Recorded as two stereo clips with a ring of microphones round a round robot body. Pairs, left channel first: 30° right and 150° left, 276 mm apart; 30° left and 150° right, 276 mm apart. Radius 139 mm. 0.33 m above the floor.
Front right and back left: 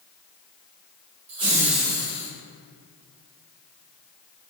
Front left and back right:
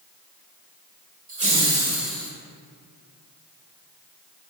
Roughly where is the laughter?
Behind.